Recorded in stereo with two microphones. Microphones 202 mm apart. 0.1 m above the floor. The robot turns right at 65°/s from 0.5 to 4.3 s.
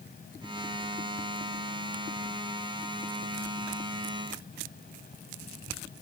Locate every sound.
Only background noise.